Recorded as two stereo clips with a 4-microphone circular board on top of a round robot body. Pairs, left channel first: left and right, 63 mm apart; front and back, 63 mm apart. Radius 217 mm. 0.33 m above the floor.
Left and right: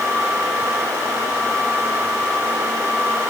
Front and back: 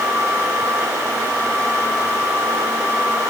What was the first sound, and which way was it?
Only background noise.